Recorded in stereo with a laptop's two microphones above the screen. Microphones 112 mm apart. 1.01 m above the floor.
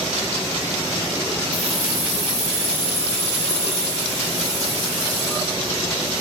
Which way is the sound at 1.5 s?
75° left (ahead or behind).